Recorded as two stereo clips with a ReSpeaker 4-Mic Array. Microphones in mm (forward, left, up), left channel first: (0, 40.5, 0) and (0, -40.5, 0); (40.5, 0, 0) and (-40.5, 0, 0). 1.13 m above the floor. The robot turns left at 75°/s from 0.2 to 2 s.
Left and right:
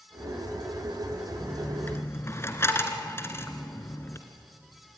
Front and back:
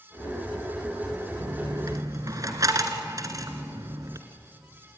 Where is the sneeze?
No sneeze in this recording.